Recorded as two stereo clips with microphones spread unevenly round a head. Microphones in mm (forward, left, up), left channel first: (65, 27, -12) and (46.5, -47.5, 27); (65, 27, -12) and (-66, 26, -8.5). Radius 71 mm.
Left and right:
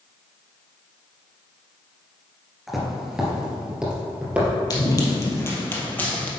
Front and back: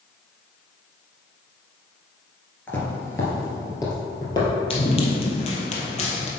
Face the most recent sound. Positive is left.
turn(degrees=-15)